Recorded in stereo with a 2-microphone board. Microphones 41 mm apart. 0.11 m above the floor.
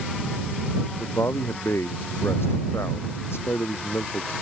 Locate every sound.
1.0 s a man speaking: 75° left (ahead or behind)